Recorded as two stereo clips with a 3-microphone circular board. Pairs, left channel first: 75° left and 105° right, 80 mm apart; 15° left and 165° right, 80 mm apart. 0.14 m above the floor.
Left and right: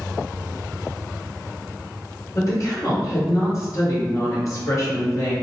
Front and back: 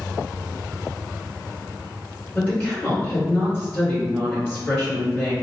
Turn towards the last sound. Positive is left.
turn(degrees=70)